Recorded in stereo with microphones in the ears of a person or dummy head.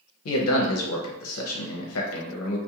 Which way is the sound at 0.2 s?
75° left (ahead or behind).